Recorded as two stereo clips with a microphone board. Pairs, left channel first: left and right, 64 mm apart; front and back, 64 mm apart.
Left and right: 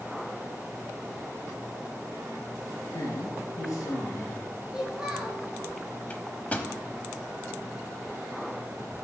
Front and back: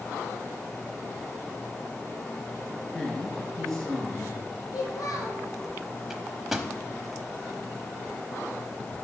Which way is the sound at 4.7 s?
10° right.